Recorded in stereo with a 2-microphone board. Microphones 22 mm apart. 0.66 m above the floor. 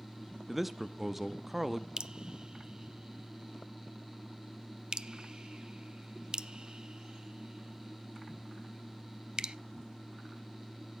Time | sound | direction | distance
0.5 | a man speaking | 15° right (ahead or behind) | 0.7 m
2.0 | dripping | 40° right (ahead or behind) | 0.6 m